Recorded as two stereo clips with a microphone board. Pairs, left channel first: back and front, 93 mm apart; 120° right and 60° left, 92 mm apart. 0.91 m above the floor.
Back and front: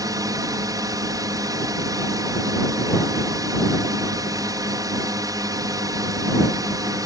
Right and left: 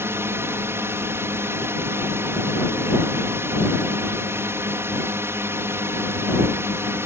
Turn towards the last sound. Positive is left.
turn(degrees=15)